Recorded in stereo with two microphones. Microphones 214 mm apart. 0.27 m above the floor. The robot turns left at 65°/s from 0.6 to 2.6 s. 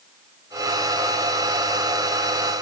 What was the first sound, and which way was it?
Only background noise.